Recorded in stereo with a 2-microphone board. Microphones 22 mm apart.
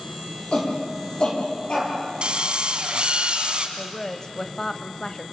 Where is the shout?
50° left (ahead or behind), 10 m; by 1.9 s 45° left (ahead or behind), 8.5 m.